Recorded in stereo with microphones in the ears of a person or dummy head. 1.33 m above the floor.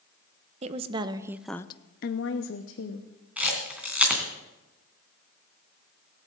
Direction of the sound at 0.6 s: 35° right (ahead or behind).